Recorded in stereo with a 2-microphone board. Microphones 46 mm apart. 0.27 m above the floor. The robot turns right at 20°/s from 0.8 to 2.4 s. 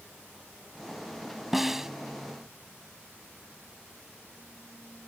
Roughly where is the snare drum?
Centre.